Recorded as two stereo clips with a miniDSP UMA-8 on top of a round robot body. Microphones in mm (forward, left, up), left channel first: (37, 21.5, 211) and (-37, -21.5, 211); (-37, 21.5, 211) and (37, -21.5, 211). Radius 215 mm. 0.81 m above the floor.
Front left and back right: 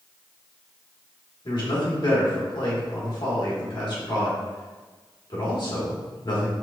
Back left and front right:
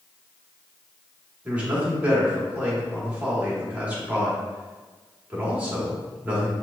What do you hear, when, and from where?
1.4 s a man speaking: 40° left, 1.7 m